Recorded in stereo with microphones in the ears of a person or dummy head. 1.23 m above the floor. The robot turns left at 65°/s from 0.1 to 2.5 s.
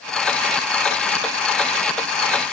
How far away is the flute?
No flute in this recording.